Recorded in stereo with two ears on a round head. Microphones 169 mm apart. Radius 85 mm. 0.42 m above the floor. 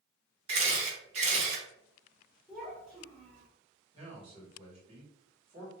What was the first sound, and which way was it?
A camera shutter, 35° right (ahead or behind).